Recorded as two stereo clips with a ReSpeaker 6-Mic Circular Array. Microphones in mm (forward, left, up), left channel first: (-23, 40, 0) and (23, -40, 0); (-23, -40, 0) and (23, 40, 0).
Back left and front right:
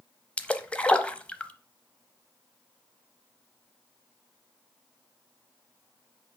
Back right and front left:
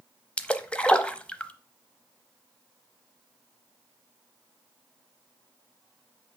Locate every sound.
0.4 s a splash: straight behind, 0.6 m